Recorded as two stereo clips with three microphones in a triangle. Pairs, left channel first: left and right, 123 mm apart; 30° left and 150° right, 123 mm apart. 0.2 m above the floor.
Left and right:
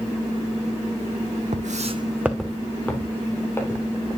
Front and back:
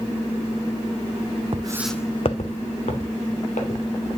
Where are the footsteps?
100° right, 0.8 m; by 3.8 s 20° left, 3 m.